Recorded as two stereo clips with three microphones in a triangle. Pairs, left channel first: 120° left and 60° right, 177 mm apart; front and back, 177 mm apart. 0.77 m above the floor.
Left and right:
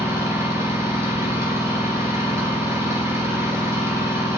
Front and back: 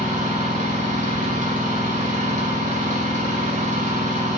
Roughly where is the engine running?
Behind right.